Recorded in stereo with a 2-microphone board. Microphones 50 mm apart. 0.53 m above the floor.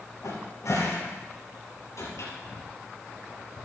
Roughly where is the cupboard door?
Left.